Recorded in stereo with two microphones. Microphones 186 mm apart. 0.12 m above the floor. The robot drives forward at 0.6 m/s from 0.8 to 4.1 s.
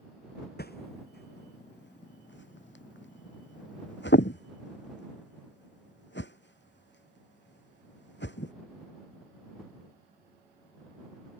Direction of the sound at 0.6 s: 60° left (ahead or behind).